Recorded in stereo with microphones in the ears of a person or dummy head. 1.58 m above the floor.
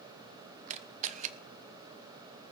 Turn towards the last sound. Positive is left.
turn(degrees=-40)  # may be behind; listen again after turning